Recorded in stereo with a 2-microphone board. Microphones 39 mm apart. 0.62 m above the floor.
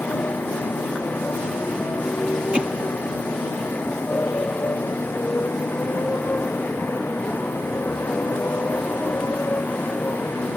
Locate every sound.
0.0 s a motorcycle: 60° left (ahead or behind)
2.5 s hammering: 25° right (ahead or behind)